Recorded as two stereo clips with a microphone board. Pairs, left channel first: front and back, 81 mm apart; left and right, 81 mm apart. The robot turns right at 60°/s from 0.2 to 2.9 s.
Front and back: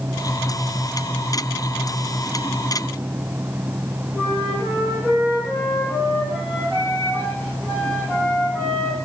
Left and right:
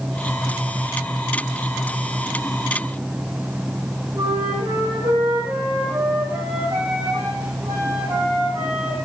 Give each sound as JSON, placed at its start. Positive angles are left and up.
{"t": 4.1, "sound": "a flute", "azimuth_deg": -65, "distance_m": 4.0}